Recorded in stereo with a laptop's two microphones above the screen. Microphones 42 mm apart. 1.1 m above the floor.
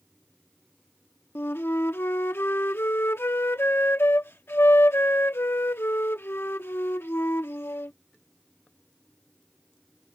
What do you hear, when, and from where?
1.4 s a flute: 70° left (ahead or behind)